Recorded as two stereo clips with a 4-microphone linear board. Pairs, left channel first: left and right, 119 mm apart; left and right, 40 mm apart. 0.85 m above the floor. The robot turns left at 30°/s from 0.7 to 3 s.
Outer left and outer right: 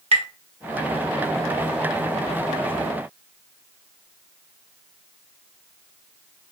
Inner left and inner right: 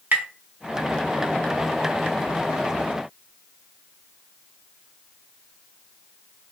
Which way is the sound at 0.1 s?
55° right (ahead or behind).